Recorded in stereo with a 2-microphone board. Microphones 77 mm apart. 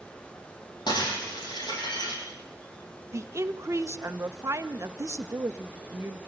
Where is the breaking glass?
75° left (ahead or behind), 9.5 m.